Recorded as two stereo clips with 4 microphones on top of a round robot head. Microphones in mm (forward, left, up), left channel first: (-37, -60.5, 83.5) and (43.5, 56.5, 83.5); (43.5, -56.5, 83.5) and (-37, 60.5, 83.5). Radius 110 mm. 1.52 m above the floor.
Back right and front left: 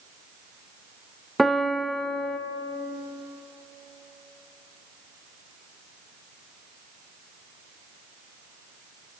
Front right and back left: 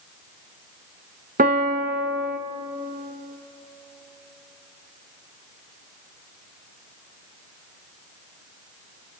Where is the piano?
145° left, 0.8 m.